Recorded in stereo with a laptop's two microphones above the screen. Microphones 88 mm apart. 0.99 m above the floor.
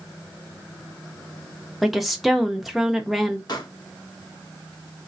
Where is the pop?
55° left (ahead or behind), 1.2 m.